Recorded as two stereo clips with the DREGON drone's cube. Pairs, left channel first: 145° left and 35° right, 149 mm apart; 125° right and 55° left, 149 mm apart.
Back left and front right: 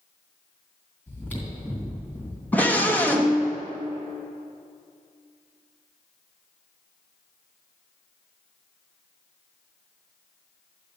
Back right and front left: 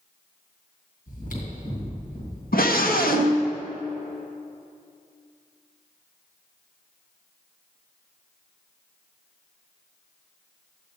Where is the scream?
135° right, 1.4 m.